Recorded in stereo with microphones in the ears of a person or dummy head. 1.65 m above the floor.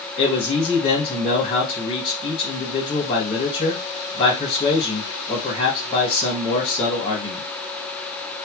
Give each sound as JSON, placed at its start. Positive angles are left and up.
{"t": 0.2, "sound": "a man speaking", "side_deg": 30, "distance_m": 2.0}